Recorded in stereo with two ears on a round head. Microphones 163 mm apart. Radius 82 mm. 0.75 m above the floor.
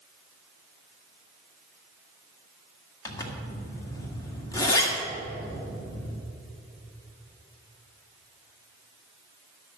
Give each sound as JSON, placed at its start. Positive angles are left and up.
{"t": 3.0, "sound": "a zipper", "side_deg": 20, "distance_m": 1.7}